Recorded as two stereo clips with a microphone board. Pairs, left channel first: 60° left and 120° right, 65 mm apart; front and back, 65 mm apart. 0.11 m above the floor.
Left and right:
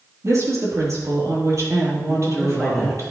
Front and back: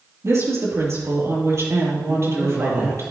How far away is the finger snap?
No finger snap in this recording.